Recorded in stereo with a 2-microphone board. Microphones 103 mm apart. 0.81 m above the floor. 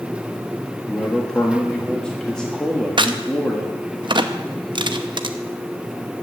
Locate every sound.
0.9 s a man speaking: 10° left (ahead or behind), 1.4 m
3.0 s a crack: 50° right (ahead or behind), 0.7 m